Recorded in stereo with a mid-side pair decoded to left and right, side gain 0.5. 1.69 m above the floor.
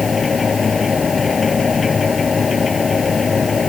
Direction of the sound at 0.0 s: 25° left.